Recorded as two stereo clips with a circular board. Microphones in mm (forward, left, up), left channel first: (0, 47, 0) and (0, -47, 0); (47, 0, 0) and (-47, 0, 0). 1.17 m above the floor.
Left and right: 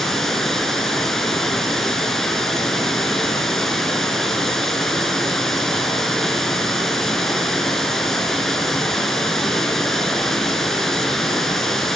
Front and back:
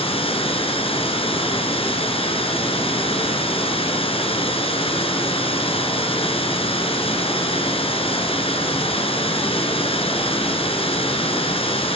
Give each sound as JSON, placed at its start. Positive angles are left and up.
{"t": 0.0, "sound": "running water", "azimuth_deg": 5, "distance_m": 4.0}